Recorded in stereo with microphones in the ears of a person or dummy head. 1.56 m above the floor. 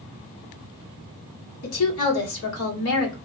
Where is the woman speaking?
75° left (ahead or behind), 1.5 m.